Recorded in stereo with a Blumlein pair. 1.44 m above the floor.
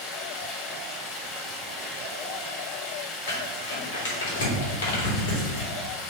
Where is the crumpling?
65° left, 3 m.